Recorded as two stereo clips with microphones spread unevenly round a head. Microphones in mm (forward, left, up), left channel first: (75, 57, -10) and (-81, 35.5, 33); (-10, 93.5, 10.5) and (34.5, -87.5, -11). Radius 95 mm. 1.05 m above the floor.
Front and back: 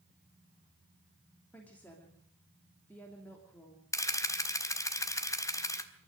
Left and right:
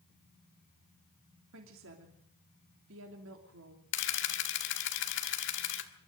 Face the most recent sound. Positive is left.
turn(degrees=80)